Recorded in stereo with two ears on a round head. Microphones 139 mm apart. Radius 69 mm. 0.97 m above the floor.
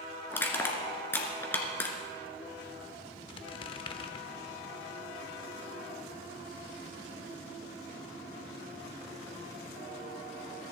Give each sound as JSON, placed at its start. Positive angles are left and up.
{"t": 0.3, "sound": "crushing", "side_deg": 15, "distance_m": 2.0}
{"t": 3.3, "sound": "a squeak", "side_deg": 30, "distance_m": 0.8}